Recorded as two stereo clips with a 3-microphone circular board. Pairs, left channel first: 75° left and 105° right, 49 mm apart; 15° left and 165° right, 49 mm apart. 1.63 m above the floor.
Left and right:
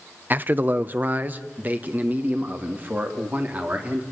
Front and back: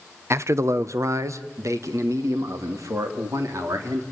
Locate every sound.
0.3 s a man speaking: 150° right, 0.7 m; by 4.0 s 165° right, 3.5 m